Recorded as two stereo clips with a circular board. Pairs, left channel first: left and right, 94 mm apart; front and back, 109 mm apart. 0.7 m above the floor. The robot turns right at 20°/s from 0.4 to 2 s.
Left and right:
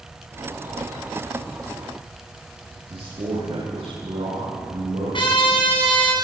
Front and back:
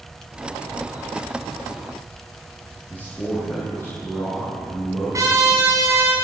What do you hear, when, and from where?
2.9 s a man speaking: 70° right, 9 m
5.1 s a trumpet: 120° left, 6 m